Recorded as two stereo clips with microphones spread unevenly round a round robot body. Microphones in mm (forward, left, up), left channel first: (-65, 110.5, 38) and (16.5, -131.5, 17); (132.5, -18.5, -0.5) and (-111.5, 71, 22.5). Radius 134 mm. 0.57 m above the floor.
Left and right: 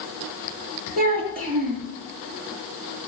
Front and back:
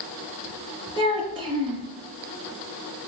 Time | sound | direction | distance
1.0 | a child speaking | 125° right | 6 m